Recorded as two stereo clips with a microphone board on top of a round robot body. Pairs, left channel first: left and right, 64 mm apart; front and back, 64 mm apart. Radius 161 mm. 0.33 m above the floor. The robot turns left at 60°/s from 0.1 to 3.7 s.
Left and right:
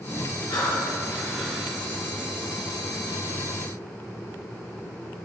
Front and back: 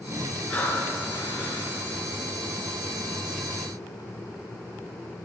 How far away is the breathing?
About 3.5 m.